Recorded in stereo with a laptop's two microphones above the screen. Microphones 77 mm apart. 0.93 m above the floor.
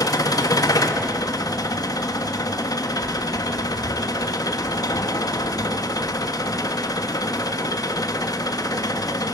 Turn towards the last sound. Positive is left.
turn(degrees=55)  # may be behind; listen again after turning